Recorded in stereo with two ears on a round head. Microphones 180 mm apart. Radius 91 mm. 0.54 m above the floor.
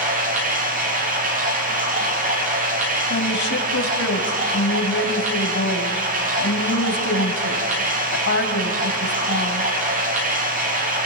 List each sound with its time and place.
0.0 s running water: 45° right (ahead or behind), 7.5 m
3.1 s a woman speaking: 65° left (ahead or behind), 3 m